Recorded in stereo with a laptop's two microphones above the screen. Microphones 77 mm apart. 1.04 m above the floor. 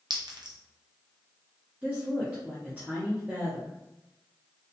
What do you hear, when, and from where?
0.1 s a clink: 65° right (ahead or behind), 0.5 m
1.8 s a woman speaking: 20° right (ahead or behind), 0.6 m